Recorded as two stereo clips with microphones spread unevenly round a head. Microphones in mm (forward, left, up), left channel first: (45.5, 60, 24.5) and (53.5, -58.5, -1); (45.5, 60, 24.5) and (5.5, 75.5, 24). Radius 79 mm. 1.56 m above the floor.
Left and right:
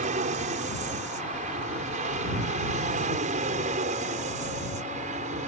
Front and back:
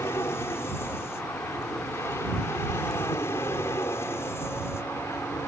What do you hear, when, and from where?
0.0 s an aircraft: 70° right